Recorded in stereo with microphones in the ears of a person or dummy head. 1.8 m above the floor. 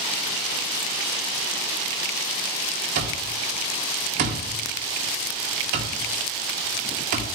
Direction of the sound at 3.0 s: 50° right (ahead or behind).